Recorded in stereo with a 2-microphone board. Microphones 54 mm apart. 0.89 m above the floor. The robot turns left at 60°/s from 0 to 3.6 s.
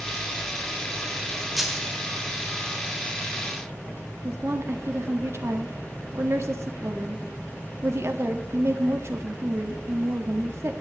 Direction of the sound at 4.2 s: 60° right (ahead or behind).